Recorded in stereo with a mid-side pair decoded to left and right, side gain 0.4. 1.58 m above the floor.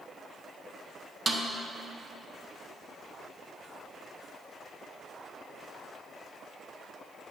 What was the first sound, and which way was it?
A snare drum, 40° right.